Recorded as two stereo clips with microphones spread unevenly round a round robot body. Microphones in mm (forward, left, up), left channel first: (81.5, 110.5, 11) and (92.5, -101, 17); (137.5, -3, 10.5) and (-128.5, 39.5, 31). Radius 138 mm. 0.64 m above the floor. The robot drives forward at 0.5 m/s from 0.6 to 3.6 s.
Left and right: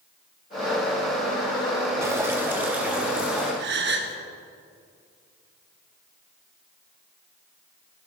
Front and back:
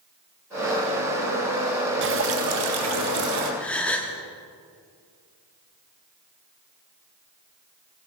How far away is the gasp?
About 0.9 m.